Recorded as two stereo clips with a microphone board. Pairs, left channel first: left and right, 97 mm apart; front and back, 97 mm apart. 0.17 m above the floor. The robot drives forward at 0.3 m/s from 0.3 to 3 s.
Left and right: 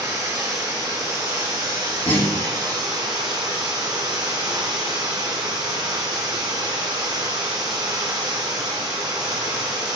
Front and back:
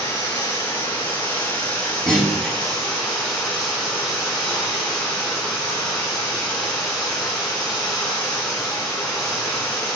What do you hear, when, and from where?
0.0 s running water: 55° right, 1.8 m; by 9.9 s 90° right, 1.6 m
2.1 s a clunk: 85° left, 1.3 m; by 2.5 s 95° left, 1.3 m